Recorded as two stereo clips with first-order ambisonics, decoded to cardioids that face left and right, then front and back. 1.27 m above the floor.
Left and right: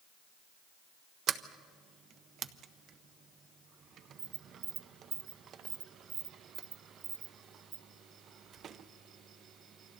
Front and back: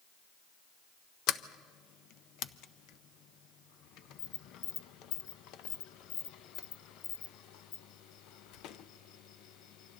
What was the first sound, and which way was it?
A sliding door, 35° right.